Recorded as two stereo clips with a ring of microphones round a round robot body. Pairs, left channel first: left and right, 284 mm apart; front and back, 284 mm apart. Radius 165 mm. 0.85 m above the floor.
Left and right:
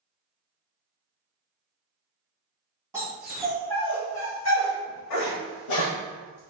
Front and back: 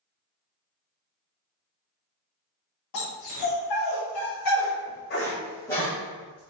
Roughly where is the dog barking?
Ahead.